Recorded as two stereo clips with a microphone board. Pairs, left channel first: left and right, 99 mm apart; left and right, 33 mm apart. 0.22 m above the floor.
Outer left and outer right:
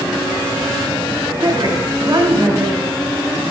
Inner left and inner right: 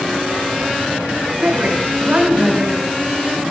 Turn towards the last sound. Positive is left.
turn(degrees=-55)  # may be behind; listen again after turning